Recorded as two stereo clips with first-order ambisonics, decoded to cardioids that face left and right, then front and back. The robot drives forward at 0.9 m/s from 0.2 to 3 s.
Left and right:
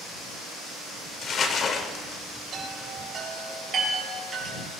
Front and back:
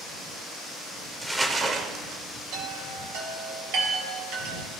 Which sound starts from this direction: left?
Crumpling, at 1.2 s.